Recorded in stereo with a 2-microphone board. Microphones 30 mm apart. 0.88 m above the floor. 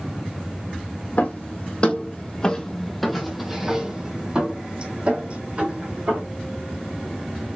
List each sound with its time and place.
1.2 s footsteps: 45° left (ahead or behind), 1.6 m; by 6.2 s 45° right (ahead or behind), 2.5 m